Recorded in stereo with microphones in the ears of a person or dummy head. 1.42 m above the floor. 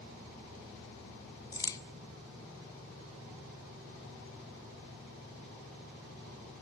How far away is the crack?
About 0.8 m.